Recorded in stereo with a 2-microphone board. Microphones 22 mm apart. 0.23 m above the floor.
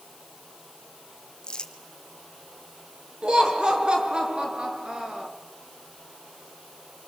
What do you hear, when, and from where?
1.4 s crumpling: 40° left (ahead or behind), 1.8 m
3.2 s laughter: 40° right (ahead or behind), 3 m